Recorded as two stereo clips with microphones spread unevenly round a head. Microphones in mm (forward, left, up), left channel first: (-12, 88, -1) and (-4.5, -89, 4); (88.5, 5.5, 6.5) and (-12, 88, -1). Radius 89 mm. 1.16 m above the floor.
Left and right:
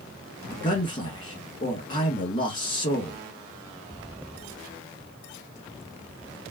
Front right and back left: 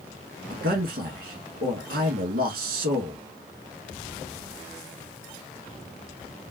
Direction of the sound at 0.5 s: 155° left.